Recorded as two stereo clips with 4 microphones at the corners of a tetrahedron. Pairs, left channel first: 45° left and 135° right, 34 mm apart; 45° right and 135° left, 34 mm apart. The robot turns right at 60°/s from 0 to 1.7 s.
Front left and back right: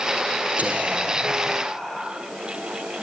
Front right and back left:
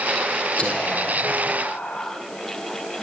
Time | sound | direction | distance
0.6 | whispering | 100° right | 3.5 m